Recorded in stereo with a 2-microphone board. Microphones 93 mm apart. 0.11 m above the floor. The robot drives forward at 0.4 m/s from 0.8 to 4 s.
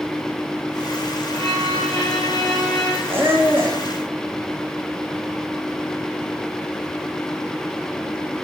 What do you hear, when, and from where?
1.3 s a violin: 75° right (ahead or behind), 5.5 m; by 3.0 s 80° right, 5.5 m
3.1 s a squeak: 25° right (ahead or behind), 2.5 m; by 3.8 s 20° right (ahead or behind), 3 m